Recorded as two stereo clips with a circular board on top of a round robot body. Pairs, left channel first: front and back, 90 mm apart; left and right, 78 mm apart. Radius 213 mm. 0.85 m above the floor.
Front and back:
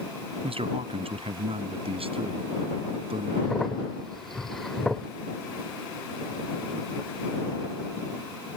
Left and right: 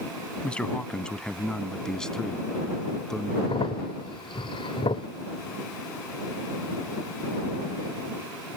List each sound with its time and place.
0.4 s a man speaking: 165° left; by 3.3 s 175° left
3.4 s a crack: 85° left